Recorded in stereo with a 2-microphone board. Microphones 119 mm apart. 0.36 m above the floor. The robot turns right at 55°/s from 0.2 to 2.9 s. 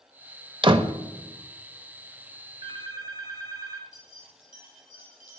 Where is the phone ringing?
45° right (ahead or behind), 1.9 m; by 3.8 s 30° right (ahead or behind), 1.9 m.